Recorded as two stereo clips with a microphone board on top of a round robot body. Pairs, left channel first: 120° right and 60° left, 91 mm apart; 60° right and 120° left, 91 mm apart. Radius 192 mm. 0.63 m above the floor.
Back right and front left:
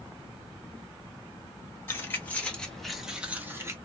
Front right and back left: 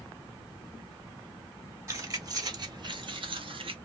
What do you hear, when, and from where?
1.9 s keys jangling: 175° left, 1.3 m; by 3.8 s 120° left, 0.9 m